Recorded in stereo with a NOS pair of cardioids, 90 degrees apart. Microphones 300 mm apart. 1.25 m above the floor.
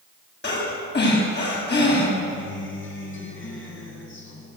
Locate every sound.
0.4 s breathing: 35° left, 9 m
2.3 s a guitar: 40° left, 7.5 m